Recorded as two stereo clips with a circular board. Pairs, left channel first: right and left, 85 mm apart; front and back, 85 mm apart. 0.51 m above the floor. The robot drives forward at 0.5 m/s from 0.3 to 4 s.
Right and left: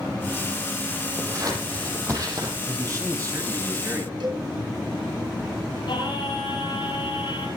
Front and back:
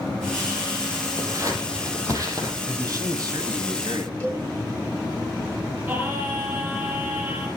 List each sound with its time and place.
1.2 s scissors: 130° left, 5.5 m; by 2.6 s 135° left, 6 m
2.7 s a man speaking: 135° left, 2.5 m; by 4.1 s 145° left, 3 m
4.2 s a cowbell: 70° left, 9 m
5.9 s singing: 120° right, 9 m